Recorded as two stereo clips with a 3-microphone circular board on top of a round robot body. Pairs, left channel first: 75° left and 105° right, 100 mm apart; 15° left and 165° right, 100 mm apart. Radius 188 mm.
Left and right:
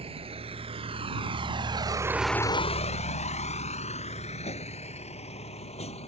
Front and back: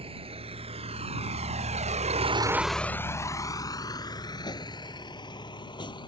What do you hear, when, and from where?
0.0 s a vehicle: 135° right; by 6.1 s 60° left